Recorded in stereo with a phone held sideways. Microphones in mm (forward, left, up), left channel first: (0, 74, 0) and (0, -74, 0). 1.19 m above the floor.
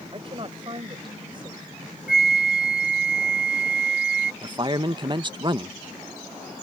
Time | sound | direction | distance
0.1 | a woman speaking | 40° right (ahead or behind) | ?
2.1 | a flute | 85° left | ?
4.4 | a man speaking | 35° right (ahead or behind) | ?